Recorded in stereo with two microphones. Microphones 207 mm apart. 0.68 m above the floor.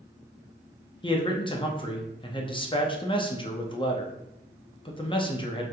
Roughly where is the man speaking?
Left.